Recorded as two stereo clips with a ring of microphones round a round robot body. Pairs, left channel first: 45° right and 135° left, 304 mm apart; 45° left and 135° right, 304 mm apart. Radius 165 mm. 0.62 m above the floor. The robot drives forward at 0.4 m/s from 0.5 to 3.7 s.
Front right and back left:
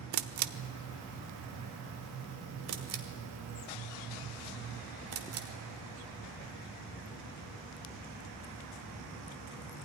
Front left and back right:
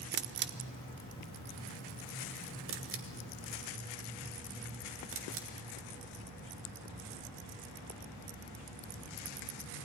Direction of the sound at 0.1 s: 170° left.